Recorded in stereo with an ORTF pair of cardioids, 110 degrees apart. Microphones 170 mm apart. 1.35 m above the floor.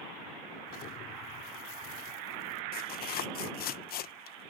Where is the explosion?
65° left.